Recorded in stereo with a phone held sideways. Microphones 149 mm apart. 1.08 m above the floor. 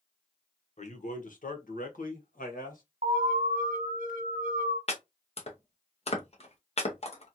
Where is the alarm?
65° right (ahead or behind), 1.4 m.